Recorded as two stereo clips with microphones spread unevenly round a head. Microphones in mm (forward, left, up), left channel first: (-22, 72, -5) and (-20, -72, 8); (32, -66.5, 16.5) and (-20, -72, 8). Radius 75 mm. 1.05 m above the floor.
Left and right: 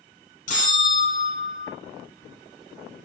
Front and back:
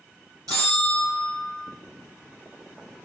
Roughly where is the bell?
Behind left.